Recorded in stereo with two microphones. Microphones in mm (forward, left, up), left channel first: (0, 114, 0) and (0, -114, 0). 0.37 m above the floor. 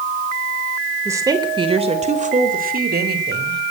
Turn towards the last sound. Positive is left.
turn(degrees=-50)  # may be behind; listen again after turning